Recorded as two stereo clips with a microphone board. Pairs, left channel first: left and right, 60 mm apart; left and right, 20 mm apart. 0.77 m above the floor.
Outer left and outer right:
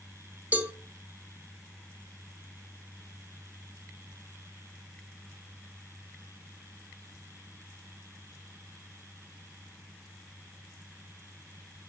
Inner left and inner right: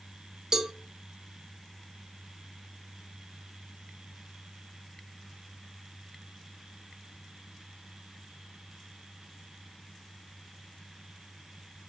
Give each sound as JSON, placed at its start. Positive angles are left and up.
{"t": 0.5, "sound": "a cowbell", "side_deg": -30, "distance_m": 0.9}